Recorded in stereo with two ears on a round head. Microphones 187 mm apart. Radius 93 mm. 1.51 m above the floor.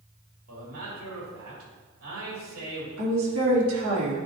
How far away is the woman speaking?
About 2 m.